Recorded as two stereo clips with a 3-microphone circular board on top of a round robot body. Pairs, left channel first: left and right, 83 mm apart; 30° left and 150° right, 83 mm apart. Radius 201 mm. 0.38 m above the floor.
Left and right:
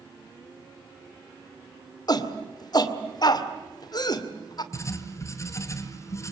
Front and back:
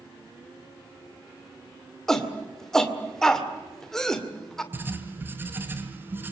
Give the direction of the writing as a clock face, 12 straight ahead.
7 o'clock.